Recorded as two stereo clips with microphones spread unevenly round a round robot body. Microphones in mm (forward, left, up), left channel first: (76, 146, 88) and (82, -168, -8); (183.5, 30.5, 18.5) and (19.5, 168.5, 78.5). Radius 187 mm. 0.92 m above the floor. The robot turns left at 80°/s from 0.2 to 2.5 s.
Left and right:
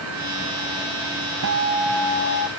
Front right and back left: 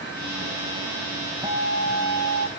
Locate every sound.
1.4 s a guitar: 140° right; by 2.5 s 135° left